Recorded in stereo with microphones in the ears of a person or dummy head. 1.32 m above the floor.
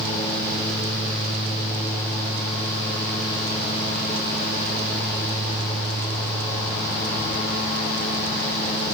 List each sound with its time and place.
Only background noise.